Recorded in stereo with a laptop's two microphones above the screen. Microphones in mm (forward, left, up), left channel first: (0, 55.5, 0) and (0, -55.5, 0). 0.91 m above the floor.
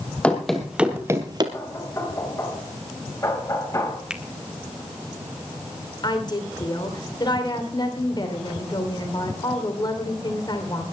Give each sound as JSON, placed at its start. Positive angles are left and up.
{"t": 0.2, "sound": "running footsteps", "side_deg": 10, "distance_m": 2.0}
{"t": 1.5, "sound": "knocking", "side_deg": 25, "distance_m": 5.0}
{"t": 4.1, "sound": "a finger snap", "side_deg": -10, "distance_m": 1.8}
{"t": 6.0, "sound": "a woman speaking", "side_deg": 40, "distance_m": 3.0}